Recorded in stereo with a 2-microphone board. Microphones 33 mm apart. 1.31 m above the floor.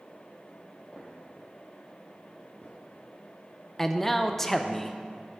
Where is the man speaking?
10° left (ahead or behind), 0.5 m.